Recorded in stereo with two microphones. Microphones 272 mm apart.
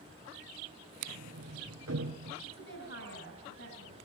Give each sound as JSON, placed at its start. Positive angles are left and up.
{"t": 1.1, "sound": "a sliding door", "side_deg": -60, "distance_m": 3.5}
{"t": 2.4, "sound": "a woman speaking", "side_deg": 50, "distance_m": 4.5}